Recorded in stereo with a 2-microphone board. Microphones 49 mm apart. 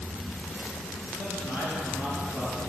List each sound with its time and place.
1.2 s a man speaking: 55° left (ahead or behind), 3.5 m